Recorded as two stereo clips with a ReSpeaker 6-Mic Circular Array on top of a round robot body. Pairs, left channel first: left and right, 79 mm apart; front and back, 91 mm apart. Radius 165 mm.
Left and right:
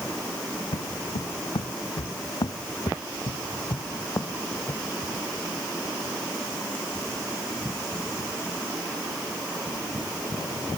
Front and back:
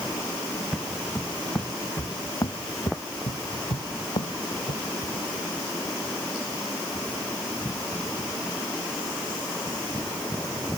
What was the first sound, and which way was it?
Footsteps, 95° left.